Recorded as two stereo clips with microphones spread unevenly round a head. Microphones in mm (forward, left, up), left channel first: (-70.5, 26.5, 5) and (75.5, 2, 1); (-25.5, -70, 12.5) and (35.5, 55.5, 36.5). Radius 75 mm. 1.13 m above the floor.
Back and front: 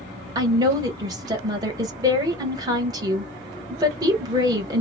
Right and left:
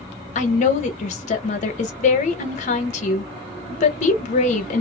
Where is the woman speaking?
75° right, 1.0 m.